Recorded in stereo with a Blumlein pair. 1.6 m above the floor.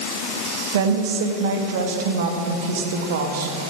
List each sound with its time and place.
0.7 s a woman speaking: 55° right, 1.5 m